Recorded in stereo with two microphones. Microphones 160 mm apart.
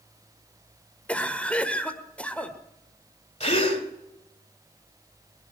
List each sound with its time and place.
1.1 s a cough: 10° left (ahead or behind), 1.4 m
3.4 s a gasp: 45° left (ahead or behind), 2 m